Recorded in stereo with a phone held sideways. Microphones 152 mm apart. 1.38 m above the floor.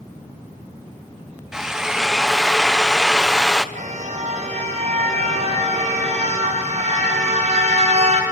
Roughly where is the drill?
Centre.